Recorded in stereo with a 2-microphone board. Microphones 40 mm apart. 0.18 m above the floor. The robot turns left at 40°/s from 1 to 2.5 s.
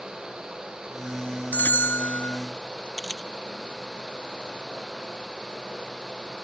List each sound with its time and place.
1.5 s a bell: 120° left; by 2.4 s 85° left
3.0 s a camera shutter: 20° left (ahead or behind)